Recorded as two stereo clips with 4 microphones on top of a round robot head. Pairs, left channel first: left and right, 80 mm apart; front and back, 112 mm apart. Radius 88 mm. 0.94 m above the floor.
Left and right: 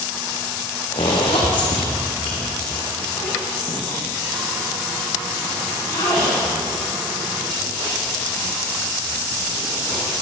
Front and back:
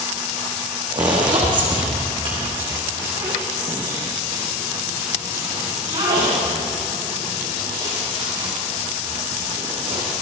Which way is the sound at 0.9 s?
135° left.